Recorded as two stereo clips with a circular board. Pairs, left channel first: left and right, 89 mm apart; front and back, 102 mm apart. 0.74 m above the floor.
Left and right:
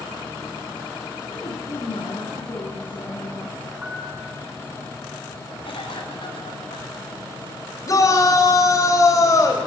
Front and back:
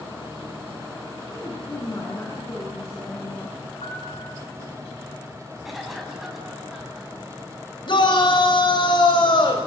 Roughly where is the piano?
Ahead.